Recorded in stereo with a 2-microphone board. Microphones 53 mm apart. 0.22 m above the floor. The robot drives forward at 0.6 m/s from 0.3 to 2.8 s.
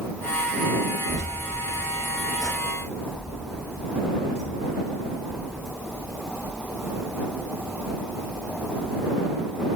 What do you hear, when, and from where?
1.1 s keys jangling: 10° right (ahead or behind), 1.9 m; by 5.7 s 5° right (ahead or behind), 3 m